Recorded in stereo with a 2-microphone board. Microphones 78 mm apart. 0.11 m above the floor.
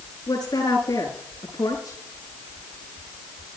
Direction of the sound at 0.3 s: 55° left (ahead or behind).